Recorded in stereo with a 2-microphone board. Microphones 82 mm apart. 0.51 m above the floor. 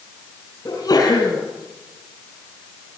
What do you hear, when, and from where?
0.7 s a sneeze: 50° left (ahead or behind), 4.5 m